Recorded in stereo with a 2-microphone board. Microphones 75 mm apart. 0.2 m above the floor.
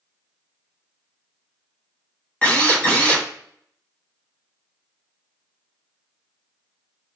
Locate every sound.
2.4 s a drill: 20° left (ahead or behind), 1.1 m